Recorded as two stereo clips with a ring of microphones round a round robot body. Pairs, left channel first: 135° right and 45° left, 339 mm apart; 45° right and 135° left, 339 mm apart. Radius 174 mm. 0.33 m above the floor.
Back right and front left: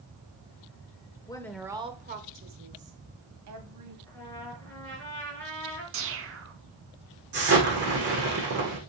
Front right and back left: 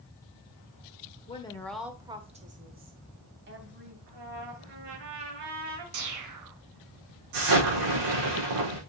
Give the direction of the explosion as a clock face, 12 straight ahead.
8 o'clock.